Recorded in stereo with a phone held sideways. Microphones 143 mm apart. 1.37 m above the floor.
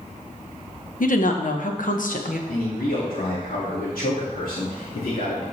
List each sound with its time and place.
1.0 s a woman speaking: 70° left (ahead or behind), 1.2 m
2.5 s a man speaking: 85° left, 2.5 m